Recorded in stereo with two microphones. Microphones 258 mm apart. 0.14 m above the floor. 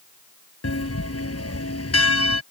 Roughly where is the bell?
Left.